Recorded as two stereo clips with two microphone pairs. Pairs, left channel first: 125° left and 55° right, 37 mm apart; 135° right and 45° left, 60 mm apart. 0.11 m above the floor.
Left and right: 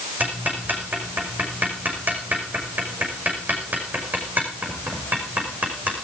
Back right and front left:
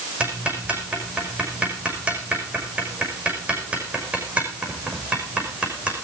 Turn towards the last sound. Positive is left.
turn(degrees=-20)